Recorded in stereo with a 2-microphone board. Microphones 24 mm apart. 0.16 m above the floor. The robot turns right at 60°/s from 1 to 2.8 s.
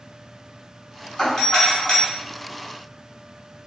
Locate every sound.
1.2 s a doorbell: 20° left (ahead or behind), 1.6 m; by 2.0 s 10° left (ahead or behind), 1.6 m